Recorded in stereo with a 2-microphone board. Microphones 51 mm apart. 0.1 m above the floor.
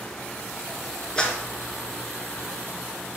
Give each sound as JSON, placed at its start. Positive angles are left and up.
{"t": 1.2, "sound": "a clap", "side_deg": 15, "distance_m": 1.4}